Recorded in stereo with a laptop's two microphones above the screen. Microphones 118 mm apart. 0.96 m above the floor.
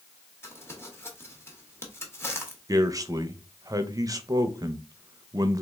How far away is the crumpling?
About 0.8 m.